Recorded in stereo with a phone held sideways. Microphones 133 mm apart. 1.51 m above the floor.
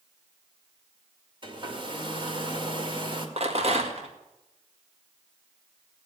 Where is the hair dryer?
35° right (ahead or behind), 2.0 m.